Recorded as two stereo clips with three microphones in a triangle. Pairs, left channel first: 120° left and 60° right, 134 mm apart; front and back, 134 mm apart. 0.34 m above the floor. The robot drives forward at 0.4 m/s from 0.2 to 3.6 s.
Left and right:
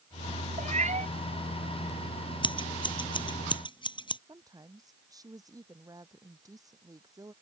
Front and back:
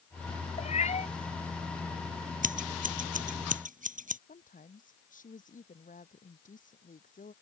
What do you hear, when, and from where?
0.6 s a cat meowing: 30° right; by 1.1 s 35° right
2.4 s scissors: 175° left
4.3 s a woman speaking: 5° left